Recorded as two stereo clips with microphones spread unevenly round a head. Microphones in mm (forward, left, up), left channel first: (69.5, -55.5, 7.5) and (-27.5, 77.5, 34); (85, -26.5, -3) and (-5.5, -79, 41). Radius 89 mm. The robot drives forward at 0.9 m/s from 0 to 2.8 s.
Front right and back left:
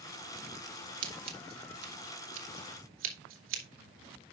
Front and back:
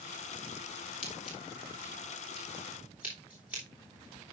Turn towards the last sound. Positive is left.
turn(degrees=130)